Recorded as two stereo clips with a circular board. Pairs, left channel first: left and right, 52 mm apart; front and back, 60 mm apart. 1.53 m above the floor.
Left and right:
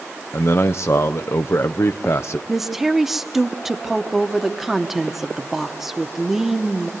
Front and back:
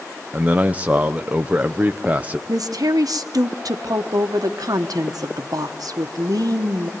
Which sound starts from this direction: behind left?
A man speaking, at 0.3 s.